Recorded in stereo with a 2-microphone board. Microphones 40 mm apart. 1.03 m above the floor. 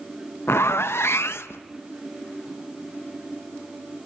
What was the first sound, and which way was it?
A zipper, 85° left.